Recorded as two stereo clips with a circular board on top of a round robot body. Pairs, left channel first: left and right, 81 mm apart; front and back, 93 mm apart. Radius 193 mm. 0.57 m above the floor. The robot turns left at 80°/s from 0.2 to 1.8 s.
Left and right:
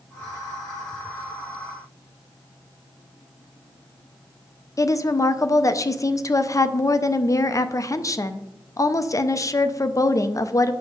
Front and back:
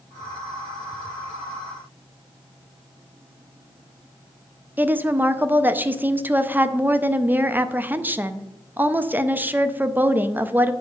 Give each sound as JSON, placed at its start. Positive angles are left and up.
{"t": 4.8, "sound": "a woman speaking", "azimuth_deg": 115, "distance_m": 0.8}